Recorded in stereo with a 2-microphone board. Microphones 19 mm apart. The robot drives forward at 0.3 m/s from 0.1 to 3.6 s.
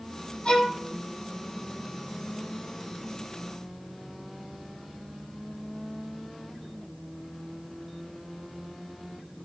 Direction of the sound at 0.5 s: 45° left (ahead or behind).